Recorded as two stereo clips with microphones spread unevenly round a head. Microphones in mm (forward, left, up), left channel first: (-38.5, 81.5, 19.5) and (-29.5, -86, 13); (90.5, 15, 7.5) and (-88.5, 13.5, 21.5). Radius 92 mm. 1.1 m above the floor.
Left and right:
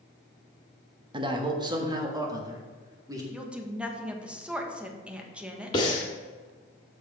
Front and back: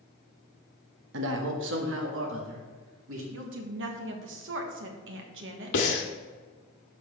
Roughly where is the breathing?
Ahead left.